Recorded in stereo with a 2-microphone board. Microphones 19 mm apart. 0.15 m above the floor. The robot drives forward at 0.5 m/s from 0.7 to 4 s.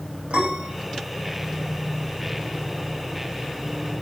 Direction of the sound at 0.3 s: 70° right (ahead or behind).